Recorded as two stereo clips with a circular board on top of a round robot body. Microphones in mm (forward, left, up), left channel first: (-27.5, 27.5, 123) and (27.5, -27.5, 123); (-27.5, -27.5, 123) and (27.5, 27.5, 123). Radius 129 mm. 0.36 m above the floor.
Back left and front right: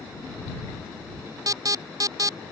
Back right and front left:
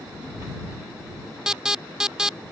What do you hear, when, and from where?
1.5 s an alarm: 35° right